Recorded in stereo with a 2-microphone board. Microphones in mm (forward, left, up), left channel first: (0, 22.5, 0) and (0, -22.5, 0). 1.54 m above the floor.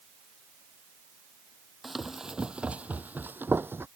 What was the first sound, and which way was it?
Running footsteps, centre (ahead or behind).